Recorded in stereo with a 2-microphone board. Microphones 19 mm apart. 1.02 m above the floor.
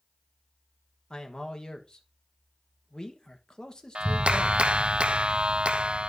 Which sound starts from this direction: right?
A clap, at 4.0 s.